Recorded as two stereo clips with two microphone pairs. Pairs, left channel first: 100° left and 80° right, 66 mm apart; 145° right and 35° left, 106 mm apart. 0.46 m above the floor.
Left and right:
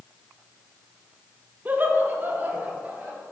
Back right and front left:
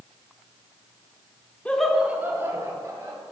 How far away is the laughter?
About 0.8 m.